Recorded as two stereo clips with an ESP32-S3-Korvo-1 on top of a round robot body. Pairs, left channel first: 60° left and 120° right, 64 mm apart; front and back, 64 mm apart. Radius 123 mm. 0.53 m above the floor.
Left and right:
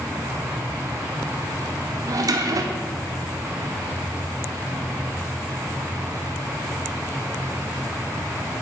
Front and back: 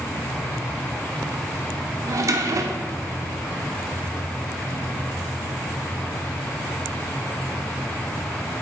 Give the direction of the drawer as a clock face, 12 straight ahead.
5 o'clock.